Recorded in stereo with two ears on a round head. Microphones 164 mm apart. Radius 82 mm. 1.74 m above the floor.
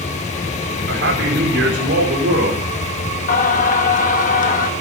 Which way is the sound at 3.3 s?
45° left (ahead or behind).